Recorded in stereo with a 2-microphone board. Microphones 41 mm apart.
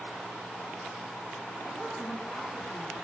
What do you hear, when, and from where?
1.6 s a woman speaking: 25° left (ahead or behind), 7.5 m